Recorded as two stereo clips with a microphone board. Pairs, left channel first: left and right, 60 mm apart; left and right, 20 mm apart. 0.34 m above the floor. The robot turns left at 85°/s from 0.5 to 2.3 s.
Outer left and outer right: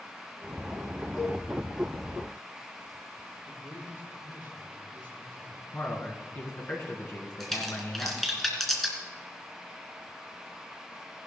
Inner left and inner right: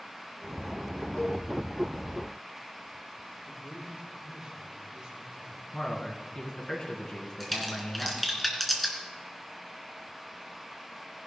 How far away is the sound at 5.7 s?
About 4 m.